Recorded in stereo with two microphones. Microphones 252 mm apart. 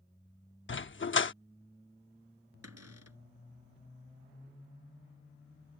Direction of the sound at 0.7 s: 50° left (ahead or behind).